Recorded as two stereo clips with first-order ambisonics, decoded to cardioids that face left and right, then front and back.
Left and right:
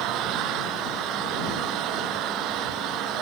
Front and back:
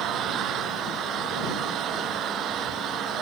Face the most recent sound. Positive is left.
turn(degrees=-130)